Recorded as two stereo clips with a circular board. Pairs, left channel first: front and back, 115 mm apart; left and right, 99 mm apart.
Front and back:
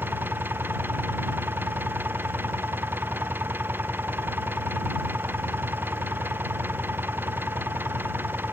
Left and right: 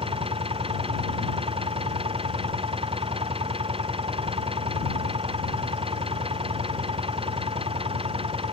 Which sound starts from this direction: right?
An engine running, at 0.0 s.